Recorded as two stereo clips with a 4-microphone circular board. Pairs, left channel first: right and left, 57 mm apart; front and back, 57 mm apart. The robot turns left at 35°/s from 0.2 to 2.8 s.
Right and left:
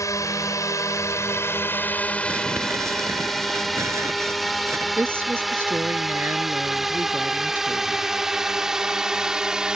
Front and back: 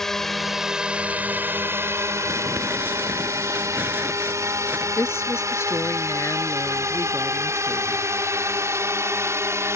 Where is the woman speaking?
40° left.